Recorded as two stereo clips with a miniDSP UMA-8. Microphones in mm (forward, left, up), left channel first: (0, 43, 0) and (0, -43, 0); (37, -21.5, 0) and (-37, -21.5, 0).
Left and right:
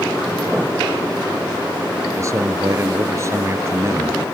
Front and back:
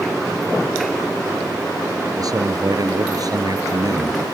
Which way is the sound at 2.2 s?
145° right.